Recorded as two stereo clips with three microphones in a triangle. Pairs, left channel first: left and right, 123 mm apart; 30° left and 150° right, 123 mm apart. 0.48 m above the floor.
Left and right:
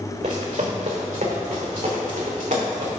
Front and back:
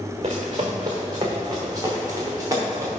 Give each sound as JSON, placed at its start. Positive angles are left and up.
{"t": 0.2, "sound": "running footsteps", "azimuth_deg": -105, "distance_m": 1.7}